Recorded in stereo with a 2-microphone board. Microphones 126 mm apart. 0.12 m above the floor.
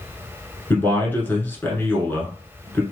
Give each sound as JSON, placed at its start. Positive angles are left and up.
{"t": 0.7, "sound": "a man speaking", "side_deg": 15, "distance_m": 1.2}